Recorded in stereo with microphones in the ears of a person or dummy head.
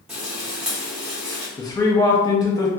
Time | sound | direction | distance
0.1 | frying | 5° right (ahead or behind) | 0.8 m
1.6 | a man speaking | 20° left (ahead or behind) | 0.6 m